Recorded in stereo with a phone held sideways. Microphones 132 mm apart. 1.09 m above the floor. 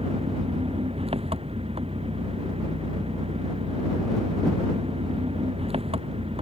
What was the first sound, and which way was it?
An engine running, 45° right (ahead or behind).